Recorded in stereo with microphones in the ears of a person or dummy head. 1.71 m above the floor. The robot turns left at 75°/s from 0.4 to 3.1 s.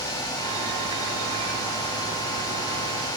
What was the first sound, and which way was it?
Only background noise.